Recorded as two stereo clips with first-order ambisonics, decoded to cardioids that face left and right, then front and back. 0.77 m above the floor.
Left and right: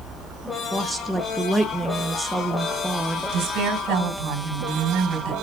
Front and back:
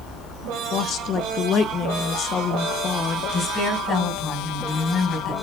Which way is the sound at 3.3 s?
60° right.